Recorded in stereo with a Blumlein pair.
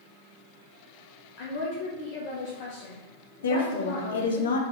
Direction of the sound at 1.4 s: 50° left.